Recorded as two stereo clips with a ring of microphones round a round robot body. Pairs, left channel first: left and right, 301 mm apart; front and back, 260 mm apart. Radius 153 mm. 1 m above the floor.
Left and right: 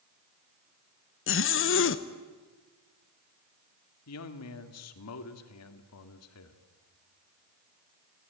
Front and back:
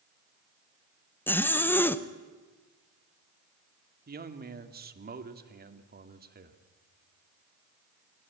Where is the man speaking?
130° left, 1.9 m.